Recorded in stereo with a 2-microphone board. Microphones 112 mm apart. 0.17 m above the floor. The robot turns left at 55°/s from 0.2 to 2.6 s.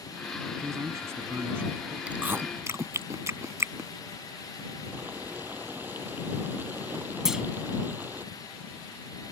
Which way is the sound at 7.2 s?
5° right (ahead or behind).